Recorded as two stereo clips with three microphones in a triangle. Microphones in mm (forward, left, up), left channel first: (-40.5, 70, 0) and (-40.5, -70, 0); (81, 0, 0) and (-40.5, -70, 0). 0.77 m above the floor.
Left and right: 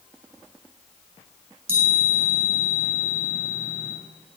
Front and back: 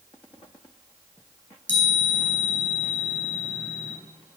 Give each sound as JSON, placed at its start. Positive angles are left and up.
{"t": 1.7, "sound": "a chime", "azimuth_deg": -50, "distance_m": 3.5}